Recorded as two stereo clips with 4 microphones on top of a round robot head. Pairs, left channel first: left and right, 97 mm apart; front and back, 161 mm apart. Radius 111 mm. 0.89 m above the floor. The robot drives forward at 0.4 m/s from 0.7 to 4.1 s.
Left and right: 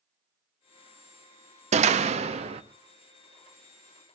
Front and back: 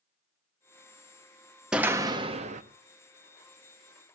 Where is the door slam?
95° right, 0.5 m; by 2.6 s 125° right, 0.6 m.